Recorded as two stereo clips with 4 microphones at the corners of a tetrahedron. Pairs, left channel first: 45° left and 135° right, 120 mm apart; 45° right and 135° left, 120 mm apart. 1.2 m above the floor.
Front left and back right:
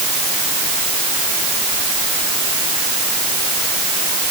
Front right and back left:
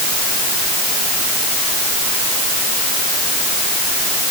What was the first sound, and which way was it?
Only background noise.